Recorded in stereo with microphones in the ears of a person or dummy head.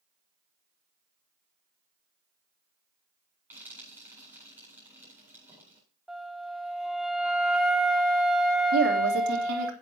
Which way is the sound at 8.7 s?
60° right (ahead or behind).